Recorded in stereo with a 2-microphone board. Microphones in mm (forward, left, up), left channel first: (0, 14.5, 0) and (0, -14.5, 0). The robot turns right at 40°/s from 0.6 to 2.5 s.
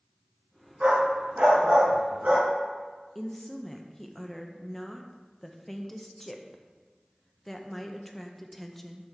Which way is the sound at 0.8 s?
40° right (ahead or behind).